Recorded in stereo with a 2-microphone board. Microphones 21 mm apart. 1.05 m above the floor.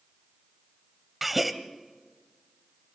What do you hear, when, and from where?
1.2 s a gasp: 5° right (ahead or behind), 1.0 m